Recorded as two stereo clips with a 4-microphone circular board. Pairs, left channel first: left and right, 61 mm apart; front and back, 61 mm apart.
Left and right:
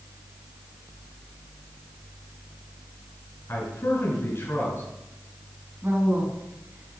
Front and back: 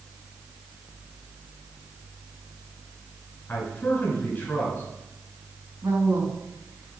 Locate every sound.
3.5 s a man speaking: 60° left, 3 m
5.8 s a woman speaking: 150° right, 3 m